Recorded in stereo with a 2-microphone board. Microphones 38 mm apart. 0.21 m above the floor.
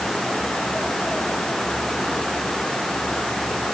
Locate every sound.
Only background noise.